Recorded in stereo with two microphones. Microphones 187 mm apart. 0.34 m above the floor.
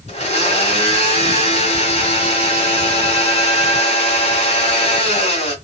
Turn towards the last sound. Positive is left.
turn(degrees=35)  # may be behind; listen again after turning